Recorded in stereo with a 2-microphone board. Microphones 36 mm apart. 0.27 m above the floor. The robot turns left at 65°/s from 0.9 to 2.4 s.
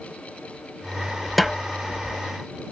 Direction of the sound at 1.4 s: 5° left (ahead or behind).